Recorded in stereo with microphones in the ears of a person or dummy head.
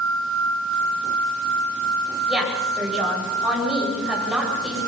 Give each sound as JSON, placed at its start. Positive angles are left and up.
{"t": 2.3, "sound": "a woman speaking", "side_deg": -10, "distance_m": 9.5}